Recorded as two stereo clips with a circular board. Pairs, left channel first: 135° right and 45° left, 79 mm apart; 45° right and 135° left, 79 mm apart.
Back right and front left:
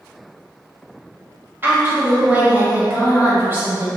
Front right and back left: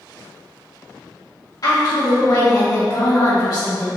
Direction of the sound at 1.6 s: 10° right.